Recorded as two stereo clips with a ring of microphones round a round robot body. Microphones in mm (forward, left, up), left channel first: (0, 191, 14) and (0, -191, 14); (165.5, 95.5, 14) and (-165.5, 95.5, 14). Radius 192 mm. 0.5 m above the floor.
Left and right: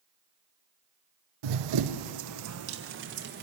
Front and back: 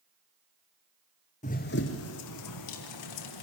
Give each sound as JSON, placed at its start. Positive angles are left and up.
{"t": 1.4, "sound": "running footsteps", "azimuth_deg": -70, "distance_m": 1.0}